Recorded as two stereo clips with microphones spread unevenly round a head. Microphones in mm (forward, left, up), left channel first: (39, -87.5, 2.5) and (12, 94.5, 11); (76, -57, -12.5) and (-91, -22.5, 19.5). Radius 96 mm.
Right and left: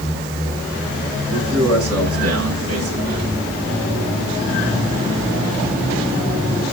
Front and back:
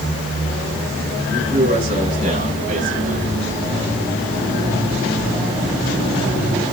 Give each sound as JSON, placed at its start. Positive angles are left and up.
{"t": 1.3, "sound": "a man speaking", "azimuth_deg": 100, "distance_m": 7.5}